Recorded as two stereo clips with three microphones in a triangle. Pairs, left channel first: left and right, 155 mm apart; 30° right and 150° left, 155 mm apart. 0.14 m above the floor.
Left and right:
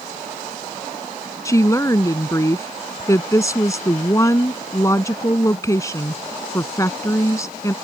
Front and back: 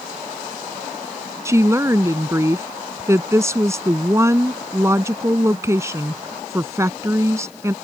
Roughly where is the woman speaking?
Behind left.